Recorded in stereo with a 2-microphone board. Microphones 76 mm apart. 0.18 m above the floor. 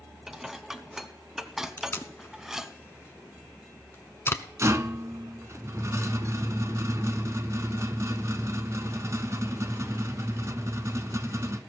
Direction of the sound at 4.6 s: 40° right (ahead or behind).